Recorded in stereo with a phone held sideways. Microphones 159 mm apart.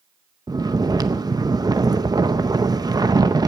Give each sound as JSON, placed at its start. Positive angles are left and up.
{"t": 0.5, "sound": "snoring", "side_deg": -25, "distance_m": 0.6}